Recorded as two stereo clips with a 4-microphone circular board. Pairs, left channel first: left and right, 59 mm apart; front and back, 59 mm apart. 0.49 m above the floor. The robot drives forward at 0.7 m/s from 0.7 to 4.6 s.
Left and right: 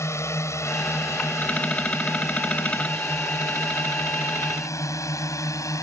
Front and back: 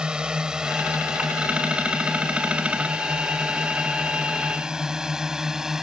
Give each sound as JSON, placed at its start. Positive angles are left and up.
{"t": 0.0, "sound": "a drone", "azimuth_deg": 110}